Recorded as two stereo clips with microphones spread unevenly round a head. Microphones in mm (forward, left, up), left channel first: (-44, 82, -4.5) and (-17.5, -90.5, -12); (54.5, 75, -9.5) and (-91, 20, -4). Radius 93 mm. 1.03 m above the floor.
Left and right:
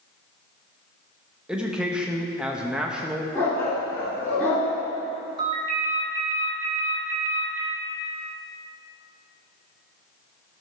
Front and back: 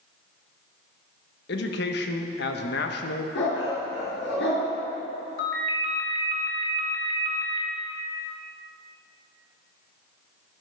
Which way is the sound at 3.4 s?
15° left.